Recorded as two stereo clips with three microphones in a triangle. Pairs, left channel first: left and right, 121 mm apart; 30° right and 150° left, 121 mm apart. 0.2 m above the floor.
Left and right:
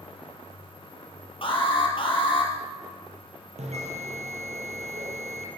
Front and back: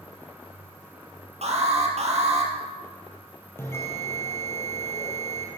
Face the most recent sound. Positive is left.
turn(degrees=-100)